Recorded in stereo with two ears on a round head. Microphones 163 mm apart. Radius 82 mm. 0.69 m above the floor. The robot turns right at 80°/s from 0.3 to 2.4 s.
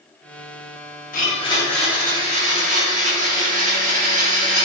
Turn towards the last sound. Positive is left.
turn(degrees=-135)